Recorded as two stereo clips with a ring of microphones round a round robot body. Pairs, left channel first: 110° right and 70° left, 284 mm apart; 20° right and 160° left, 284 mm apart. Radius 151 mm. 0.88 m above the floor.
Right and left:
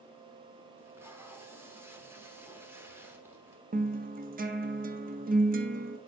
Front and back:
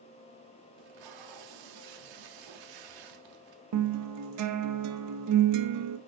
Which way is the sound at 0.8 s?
150° left.